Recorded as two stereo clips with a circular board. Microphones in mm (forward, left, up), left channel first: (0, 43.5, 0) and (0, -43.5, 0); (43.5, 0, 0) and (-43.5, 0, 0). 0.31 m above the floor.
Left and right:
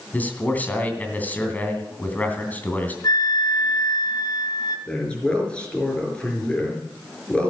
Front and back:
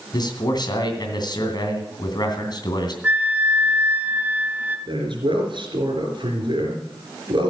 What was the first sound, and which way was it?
A man speaking, 20° left.